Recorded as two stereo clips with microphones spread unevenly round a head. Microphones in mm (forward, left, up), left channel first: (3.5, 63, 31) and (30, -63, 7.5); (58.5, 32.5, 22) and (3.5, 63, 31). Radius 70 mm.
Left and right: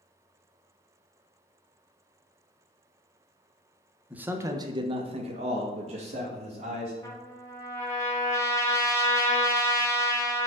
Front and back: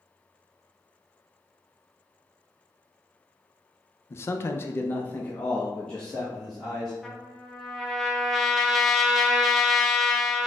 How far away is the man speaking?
About 0.6 m.